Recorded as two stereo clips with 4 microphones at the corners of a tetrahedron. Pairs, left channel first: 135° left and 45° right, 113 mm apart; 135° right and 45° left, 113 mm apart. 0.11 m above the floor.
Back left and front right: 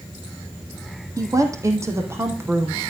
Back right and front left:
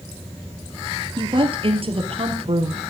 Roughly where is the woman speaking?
Ahead.